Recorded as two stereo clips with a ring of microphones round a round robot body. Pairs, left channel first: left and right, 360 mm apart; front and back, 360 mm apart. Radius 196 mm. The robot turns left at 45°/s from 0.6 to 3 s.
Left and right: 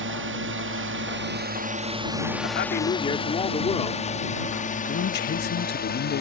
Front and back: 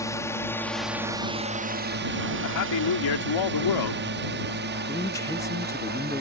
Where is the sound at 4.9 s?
70° left.